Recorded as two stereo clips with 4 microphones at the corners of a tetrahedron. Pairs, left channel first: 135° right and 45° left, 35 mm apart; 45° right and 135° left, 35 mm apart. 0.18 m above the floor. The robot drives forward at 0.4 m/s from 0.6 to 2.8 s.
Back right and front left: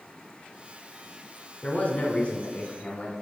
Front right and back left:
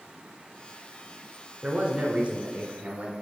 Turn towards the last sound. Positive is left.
turn(degrees=180)